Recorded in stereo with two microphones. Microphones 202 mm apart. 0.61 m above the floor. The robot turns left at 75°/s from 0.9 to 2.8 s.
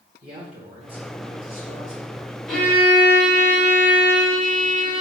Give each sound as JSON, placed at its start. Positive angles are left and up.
{"t": 0.2, "sound": "a man speaking", "azimuth_deg": -30, "distance_m": 2.0}
{"t": 2.5, "sound": "a violin", "side_deg": 0, "distance_m": 2.0}